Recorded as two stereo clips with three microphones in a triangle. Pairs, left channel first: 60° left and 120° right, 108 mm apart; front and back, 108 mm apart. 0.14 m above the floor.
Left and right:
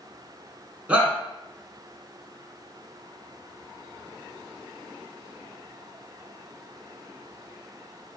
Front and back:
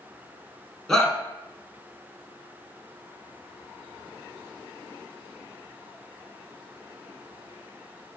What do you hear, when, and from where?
0.9 s a shout: 75° right, 1.0 m